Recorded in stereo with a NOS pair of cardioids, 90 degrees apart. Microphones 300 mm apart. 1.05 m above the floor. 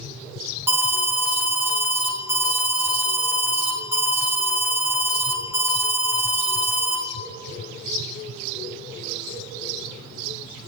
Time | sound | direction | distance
0.7 | an alarm | 5° right | 0.6 m